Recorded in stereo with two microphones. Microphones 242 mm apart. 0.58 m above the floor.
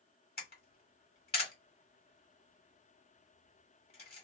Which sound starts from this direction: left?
A camera shutter, at 0.4 s.